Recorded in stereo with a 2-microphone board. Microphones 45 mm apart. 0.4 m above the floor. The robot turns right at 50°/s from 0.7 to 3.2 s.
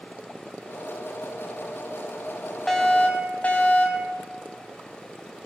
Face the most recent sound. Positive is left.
turn(degrees=30)  # may be behind; listen again after turning